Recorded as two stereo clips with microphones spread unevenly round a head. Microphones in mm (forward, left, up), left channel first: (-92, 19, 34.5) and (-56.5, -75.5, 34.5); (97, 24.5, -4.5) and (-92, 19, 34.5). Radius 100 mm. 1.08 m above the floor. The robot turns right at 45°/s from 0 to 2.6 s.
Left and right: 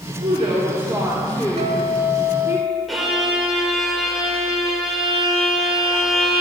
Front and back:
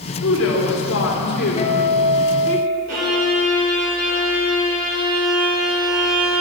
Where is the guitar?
55° right, 2 m; by 2.8 s 10° right, 2 m.